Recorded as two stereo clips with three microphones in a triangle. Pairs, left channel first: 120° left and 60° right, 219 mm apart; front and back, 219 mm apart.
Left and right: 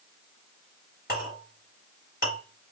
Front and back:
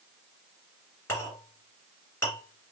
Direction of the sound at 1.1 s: 80° left.